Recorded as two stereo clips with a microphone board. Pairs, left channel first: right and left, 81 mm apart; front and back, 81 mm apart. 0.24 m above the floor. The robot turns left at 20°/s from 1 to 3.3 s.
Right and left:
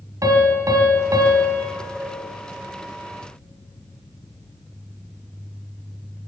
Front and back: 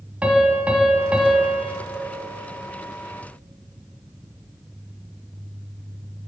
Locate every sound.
0.2 s a piano: 110° left, 1.1 m; by 1.7 s 95° left, 1.1 m